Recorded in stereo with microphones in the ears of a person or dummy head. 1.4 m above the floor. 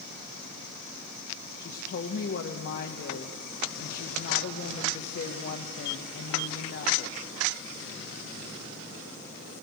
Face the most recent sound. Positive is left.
turn(degrees=55)  # may be behind; listen again after turning